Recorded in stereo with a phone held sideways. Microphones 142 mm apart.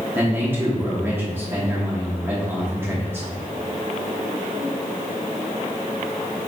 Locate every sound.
0.1 s a man speaking: 15° right (ahead or behind), 1.0 m